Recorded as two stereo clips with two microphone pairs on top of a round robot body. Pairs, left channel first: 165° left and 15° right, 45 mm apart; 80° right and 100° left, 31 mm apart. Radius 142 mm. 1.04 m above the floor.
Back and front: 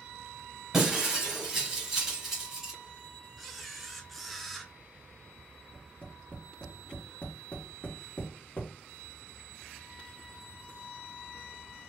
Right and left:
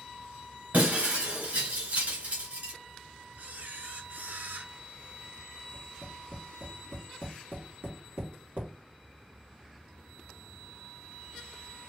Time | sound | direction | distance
0.7 | breaking glass | 65° left | 2.5 m
3.4 | a camera shutter | 75° left | 1.0 m
5.7 | tapping | 110° left | 2.5 m